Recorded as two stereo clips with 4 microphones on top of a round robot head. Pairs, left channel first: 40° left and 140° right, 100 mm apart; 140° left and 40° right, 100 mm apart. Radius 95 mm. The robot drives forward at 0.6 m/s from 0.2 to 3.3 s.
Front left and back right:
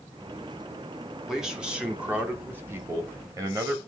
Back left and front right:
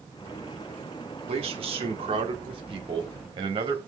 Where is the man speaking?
55° right, 2.5 m; by 3.8 s 85° right, 2 m.